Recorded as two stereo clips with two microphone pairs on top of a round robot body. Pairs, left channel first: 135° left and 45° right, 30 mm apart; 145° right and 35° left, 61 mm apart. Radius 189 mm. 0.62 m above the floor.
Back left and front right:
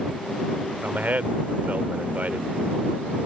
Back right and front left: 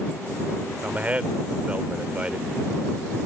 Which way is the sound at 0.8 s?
30° right.